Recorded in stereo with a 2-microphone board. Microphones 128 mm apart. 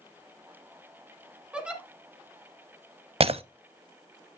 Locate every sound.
1.5 s a giggle: 5° right (ahead or behind), 2.0 m
3.2 s breaking glass: 55° right (ahead or behind), 0.6 m